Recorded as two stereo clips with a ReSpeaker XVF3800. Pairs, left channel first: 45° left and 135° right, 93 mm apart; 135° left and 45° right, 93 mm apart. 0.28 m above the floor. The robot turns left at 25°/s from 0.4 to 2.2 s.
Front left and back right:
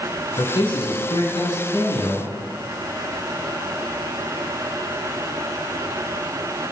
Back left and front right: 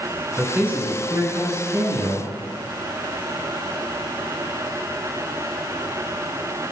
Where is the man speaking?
30° left, 3 m; by 2.3 s 15° right, 3 m.